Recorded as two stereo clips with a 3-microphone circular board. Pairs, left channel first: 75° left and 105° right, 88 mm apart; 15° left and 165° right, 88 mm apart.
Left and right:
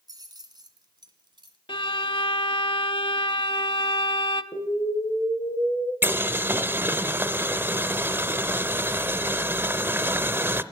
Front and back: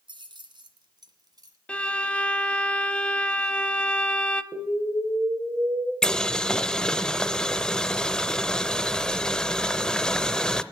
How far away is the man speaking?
I don't hear a man speaking.